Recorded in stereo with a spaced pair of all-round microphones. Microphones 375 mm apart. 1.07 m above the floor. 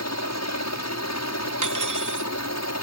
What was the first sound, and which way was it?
A helicopter, 45° left (ahead or behind).